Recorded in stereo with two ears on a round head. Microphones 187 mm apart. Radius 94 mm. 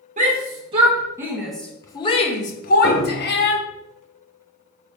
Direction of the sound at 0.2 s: 35° right (ahead or behind).